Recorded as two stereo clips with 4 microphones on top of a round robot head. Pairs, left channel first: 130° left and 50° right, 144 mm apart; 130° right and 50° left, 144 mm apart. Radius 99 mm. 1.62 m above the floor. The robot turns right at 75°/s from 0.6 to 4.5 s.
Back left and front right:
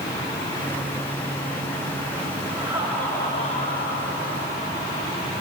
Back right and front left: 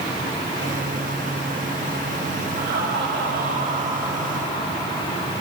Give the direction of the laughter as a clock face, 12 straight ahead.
12 o'clock.